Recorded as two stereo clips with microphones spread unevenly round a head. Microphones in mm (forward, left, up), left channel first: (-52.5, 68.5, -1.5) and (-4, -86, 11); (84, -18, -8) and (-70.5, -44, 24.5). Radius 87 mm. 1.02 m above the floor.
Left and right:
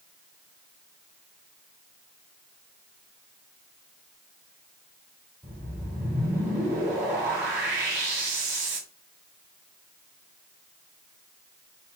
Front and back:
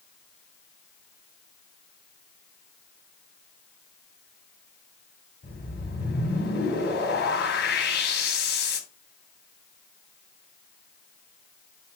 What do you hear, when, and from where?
5.4 s a whoosh: 5° left, 2.5 m